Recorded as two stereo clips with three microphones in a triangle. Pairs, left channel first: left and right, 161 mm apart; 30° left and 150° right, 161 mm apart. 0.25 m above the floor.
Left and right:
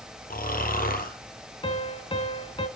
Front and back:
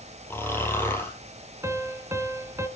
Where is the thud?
No thud in this recording.